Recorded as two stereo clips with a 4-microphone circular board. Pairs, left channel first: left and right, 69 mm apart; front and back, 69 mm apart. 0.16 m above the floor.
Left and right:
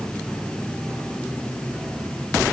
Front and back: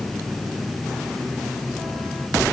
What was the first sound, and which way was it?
Only background noise.